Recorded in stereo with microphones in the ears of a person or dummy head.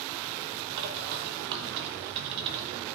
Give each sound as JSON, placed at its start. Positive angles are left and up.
{"t": 0.8, "sound": "a bird", "side_deg": -50, "distance_m": 1.2}